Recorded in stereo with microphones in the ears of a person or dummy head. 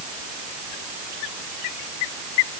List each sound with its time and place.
Only background noise.